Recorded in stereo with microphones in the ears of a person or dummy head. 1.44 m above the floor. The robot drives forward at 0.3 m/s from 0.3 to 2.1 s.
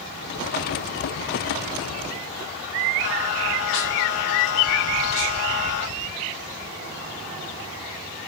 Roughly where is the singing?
Left.